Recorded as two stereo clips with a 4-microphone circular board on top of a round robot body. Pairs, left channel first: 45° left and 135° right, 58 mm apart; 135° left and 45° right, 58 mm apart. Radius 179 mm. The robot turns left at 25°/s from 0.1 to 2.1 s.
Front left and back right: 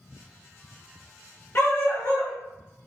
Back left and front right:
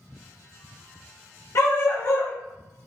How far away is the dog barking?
About 0.8 m.